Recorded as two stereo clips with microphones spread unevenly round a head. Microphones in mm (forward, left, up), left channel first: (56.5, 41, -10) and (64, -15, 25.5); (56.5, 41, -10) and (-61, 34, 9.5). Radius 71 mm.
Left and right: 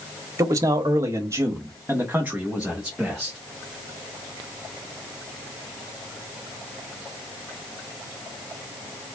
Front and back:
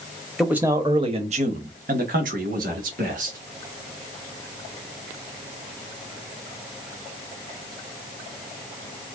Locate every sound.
0.4 s a man speaking: 90° right, 0.8 m; by 3.4 s 170° right, 1.9 m